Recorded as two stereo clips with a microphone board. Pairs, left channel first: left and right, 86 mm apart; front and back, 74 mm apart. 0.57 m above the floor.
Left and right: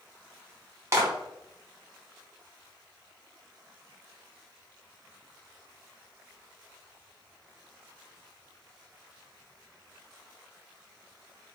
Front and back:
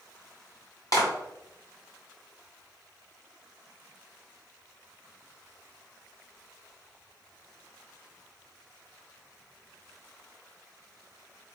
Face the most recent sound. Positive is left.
turn(degrees=-30)